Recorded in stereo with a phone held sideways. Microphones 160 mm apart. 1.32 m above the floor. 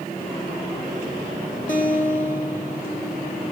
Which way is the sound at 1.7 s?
55° left (ahead or behind).